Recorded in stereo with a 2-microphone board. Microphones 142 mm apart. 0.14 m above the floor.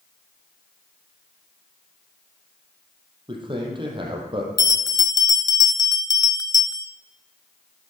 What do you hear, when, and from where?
3.3 s a man speaking: 35° right (ahead or behind), 4 m
4.6 s a bell: 30° left (ahead or behind), 0.6 m